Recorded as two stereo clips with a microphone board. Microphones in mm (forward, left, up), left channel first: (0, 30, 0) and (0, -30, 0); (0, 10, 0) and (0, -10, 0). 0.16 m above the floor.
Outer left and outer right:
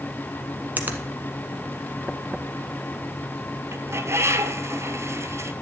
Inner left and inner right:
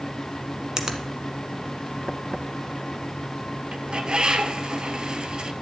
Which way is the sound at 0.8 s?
30° right (ahead or behind).